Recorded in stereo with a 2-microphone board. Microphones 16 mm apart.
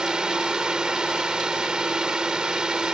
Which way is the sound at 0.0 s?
60° right (ahead or behind).